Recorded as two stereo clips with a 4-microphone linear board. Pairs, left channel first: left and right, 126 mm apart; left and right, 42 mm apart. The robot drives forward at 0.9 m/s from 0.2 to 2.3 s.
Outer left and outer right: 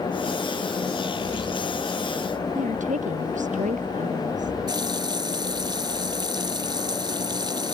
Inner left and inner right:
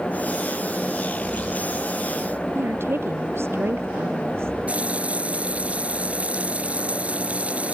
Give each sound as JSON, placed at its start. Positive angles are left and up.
{"t": 2.5, "sound": "a woman speaking", "side_deg": -80}
{"t": 4.7, "sound": "a running tap", "side_deg": -35}